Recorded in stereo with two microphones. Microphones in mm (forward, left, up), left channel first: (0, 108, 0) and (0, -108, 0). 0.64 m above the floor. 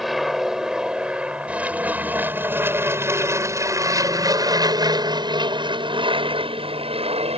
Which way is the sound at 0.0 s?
Centre (ahead or behind).